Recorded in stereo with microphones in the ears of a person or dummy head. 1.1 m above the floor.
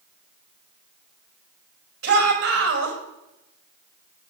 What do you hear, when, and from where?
2.0 s a shout: 70° right (ahead or behind), 6 m